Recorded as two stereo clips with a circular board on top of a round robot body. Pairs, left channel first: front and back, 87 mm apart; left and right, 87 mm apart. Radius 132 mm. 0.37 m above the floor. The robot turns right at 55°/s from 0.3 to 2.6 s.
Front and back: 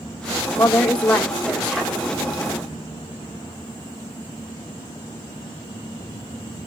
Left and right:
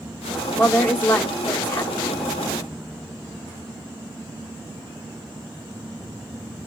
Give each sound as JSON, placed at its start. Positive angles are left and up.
{"t": 0.6, "sound": "a woman speaking", "azimuth_deg": 35, "distance_m": 1.1}